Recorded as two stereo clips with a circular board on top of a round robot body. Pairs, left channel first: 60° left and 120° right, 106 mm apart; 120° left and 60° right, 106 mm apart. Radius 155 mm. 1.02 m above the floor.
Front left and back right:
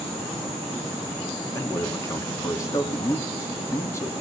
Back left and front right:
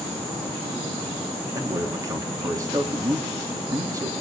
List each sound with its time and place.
1.5 s a man speaking: 5° right, 3 m